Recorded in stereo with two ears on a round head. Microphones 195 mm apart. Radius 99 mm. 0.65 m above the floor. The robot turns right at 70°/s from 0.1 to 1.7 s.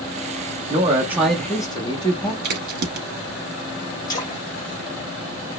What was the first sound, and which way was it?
A man speaking, 45° right.